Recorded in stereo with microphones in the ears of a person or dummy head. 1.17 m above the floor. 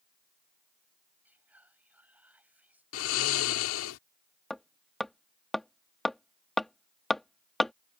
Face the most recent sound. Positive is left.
turn(degrees=10)  # may be behind; listen again after turning